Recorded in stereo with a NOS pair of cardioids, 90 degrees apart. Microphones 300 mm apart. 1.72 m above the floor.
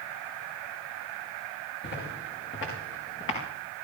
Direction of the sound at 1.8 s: 40° left.